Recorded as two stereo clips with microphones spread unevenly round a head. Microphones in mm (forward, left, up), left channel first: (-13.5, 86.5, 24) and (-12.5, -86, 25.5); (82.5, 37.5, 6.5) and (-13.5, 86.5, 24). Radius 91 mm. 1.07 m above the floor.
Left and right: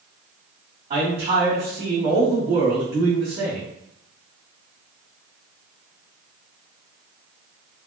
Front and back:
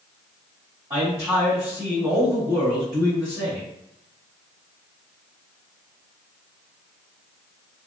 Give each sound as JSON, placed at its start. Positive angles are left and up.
{"t": 0.9, "sound": "a man speaking", "azimuth_deg": -145, "distance_m": 1.8}